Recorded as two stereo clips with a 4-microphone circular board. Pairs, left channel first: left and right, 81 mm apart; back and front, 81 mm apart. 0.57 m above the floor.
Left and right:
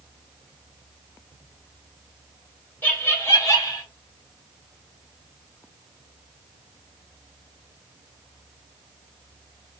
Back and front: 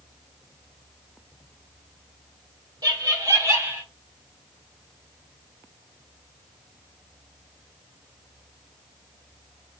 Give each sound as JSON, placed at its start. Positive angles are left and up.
{"t": 2.8, "sound": "laughter", "azimuth_deg": 25, "distance_m": 1.5}